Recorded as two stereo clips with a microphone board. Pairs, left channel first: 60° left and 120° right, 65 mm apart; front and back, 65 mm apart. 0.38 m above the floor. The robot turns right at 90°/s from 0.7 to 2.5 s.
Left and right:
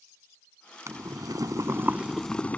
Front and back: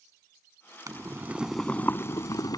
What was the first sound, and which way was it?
Boiling, 155° right.